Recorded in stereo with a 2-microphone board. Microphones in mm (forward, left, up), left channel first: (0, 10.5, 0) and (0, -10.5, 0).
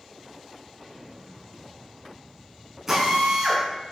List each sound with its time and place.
0.7 s an explosion: 5° left (ahead or behind), 2.5 m
2.9 s a drill: 15° right (ahead or behind), 4 m